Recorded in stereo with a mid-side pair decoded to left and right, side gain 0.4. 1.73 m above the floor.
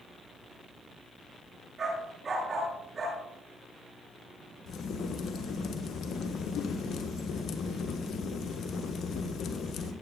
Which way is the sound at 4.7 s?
70° left.